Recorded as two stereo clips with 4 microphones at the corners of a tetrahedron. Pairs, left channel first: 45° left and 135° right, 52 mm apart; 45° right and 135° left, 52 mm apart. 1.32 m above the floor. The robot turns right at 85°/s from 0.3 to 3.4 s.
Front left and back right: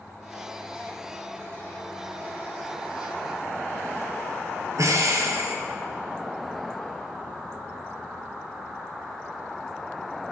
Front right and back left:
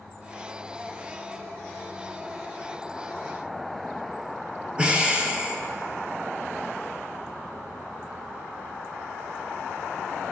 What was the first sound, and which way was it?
Breathing, 155° right.